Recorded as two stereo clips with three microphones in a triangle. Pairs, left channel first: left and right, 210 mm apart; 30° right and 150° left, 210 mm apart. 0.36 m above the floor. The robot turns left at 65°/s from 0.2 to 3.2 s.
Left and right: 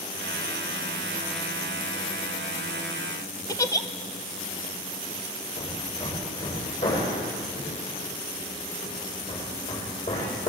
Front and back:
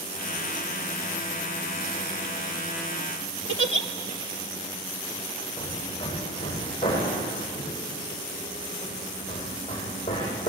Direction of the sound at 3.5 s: 160° left.